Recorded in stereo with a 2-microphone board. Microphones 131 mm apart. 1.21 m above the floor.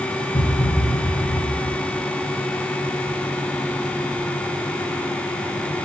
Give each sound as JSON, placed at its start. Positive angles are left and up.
{"t": 0.3, "sound": "a thud", "side_deg": 30, "distance_m": 1.5}